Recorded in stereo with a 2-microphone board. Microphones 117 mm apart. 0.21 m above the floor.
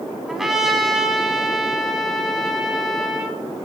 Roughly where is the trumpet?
Centre.